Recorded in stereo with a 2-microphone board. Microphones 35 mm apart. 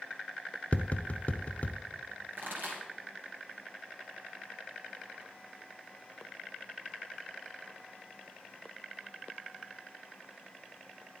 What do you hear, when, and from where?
0.7 s tapping: 40° left (ahead or behind), 0.7 m
2.3 s a pop: 65° right (ahead or behind), 3 m